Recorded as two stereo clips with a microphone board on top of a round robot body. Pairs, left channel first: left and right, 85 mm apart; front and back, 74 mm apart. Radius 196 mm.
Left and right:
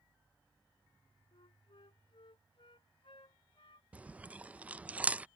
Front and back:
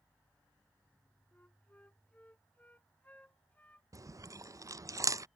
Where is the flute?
70° left.